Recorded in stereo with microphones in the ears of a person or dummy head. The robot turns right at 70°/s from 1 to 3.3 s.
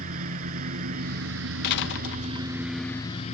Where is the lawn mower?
130° right; by 3.4 s 30° left.